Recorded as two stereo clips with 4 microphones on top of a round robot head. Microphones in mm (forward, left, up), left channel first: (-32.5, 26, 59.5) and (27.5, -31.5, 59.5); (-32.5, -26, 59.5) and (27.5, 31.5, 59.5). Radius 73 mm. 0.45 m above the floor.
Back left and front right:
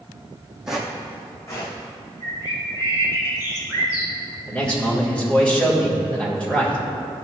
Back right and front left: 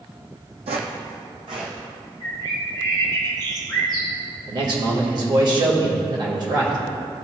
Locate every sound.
0.7 s footsteps: 40° left, 1.2 m; by 1.8 s 85° left, 2 m
2.2 s a bird: 90° left, 2 m
4.5 s a man speaking: 60° left, 2.5 m